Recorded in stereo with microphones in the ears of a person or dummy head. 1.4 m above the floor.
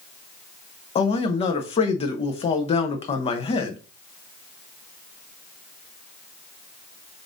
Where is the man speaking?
35° left (ahead or behind), 0.6 m.